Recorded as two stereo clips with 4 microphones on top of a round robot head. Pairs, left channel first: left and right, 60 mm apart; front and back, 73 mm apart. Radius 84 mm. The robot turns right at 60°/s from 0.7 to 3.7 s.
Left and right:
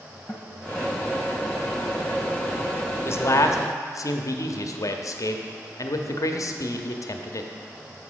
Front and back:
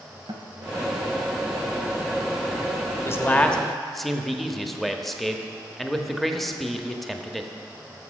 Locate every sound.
0.3 s a guitar: 150° left, 1.0 m
3.0 s a man speaking: 50° left, 1.0 m; by 7.5 s 90° left, 1.0 m